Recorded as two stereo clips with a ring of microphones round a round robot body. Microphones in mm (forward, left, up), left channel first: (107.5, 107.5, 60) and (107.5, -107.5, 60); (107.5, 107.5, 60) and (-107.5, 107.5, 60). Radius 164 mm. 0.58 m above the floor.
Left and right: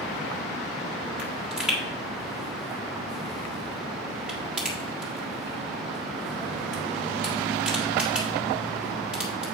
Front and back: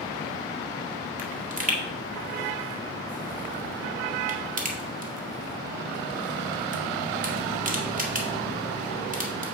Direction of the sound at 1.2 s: 175° right.